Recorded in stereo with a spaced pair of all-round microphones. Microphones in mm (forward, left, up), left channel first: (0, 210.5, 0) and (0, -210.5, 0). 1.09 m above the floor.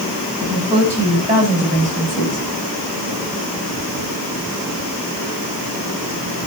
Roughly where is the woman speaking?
Centre.